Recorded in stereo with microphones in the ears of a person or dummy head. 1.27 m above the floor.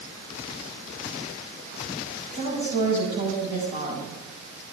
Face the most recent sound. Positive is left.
turn(degrees=-40)  # may be behind; listen again after turning